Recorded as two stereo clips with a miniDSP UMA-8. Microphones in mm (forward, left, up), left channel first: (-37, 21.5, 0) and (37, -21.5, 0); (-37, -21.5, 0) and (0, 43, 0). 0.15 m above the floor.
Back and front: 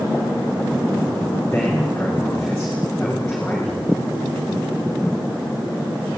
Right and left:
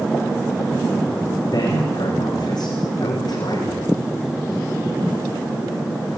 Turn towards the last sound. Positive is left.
turn(degrees=-130)